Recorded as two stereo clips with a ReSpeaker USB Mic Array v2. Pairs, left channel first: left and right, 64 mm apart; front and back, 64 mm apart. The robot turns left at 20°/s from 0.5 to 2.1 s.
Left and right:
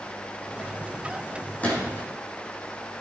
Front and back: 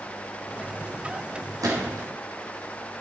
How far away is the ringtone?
I don't hear a ringtone.